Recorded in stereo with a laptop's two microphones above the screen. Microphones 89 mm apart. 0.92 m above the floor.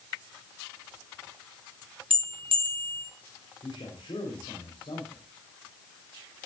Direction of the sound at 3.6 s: 80° left.